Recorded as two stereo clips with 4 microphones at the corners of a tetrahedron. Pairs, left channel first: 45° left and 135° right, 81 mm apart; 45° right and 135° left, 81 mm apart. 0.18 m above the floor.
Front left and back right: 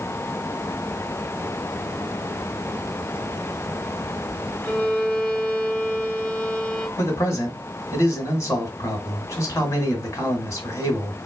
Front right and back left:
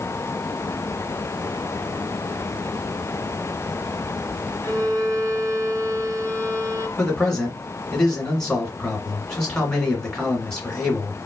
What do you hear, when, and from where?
4.6 s a violin: 120° left, 1.6 m
7.0 s a man speaking: 25° left, 2.0 m